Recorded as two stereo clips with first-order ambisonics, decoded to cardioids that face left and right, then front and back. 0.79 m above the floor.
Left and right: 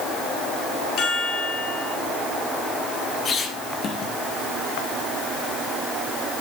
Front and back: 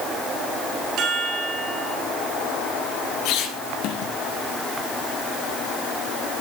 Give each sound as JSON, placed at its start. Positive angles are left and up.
{"t": 1.0, "sound": "a chime", "azimuth_deg": 135, "distance_m": 2.5}
{"t": 3.2, "sound": "a squeak", "azimuth_deg": 25, "distance_m": 1.6}